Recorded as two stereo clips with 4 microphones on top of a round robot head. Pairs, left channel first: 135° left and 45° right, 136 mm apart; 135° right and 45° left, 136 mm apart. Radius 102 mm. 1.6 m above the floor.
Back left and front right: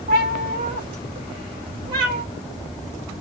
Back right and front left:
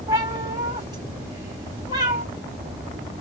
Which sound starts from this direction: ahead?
A cat meowing, at 0.1 s.